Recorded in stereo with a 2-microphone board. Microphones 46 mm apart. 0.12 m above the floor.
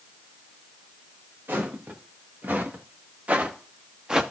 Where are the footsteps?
45° right (ahead or behind), 3 m; by 4.2 s 15° right (ahead or behind), 1.1 m.